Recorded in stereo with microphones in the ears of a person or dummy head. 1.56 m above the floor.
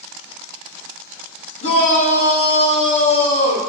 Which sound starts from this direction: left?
A shout, at 1.6 s.